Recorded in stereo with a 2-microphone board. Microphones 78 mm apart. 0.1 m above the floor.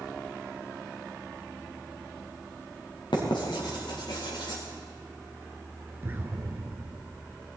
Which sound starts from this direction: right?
An explosion, at 6.0 s.